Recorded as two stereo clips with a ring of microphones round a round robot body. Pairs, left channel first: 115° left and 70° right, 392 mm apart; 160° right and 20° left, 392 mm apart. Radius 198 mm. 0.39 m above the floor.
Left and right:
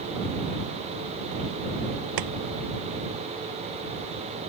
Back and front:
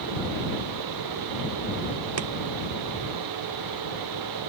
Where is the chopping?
30° right.